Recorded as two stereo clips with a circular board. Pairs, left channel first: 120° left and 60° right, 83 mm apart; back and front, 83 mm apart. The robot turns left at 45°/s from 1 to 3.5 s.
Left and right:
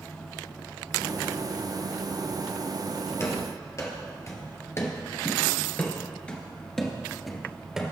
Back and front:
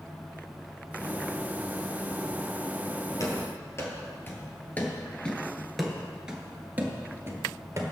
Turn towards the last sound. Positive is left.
turn(degrees=20)